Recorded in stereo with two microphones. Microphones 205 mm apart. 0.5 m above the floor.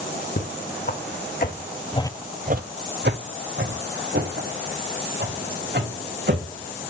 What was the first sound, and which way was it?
Footsteps, 50° left (ahead or behind).